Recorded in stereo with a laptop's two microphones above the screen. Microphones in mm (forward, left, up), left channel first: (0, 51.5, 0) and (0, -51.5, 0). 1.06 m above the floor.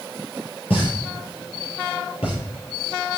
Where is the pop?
85° left, 5.5 m.